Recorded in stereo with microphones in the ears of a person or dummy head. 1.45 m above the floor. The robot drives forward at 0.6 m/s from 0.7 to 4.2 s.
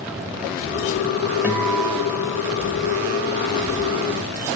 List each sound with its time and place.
1.4 s a guitar: 5° right (ahead or behind), 1.4 m